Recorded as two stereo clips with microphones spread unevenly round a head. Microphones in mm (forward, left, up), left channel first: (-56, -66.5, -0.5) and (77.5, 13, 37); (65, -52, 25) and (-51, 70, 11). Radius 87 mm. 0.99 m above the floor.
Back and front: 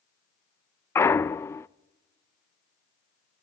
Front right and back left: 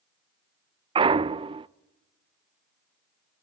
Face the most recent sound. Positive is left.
turn(degrees=165)